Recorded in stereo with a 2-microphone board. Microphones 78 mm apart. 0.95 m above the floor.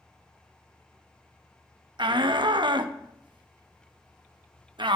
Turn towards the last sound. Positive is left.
turn(degrees=-65)  # may be behind; listen again after turning